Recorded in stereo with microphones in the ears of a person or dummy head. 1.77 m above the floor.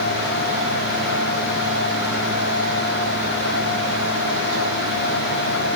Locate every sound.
Only background noise.